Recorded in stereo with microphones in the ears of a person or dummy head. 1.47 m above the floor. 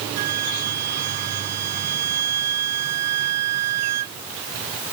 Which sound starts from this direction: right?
A flute, at 0.2 s.